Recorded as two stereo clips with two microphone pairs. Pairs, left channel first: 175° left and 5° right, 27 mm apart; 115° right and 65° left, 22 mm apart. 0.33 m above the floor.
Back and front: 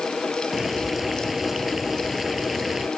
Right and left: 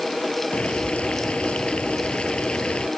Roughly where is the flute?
No flute in this recording.